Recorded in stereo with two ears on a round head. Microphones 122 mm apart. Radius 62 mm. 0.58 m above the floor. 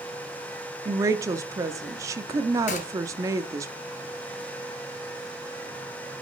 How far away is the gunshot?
About 1.7 m.